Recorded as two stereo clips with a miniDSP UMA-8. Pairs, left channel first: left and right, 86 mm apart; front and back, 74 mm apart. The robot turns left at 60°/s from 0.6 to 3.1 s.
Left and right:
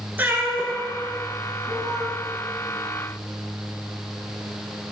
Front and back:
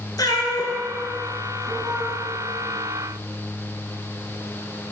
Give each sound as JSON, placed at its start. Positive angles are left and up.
{"t": 0.2, "sound": "a cat meowing", "azimuth_deg": -20, "distance_m": 1.6}